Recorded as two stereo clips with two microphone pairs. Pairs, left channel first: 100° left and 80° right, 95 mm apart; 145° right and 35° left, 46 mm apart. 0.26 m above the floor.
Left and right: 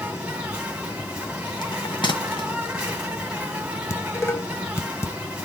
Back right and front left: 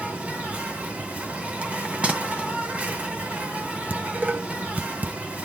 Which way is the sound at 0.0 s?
5° right.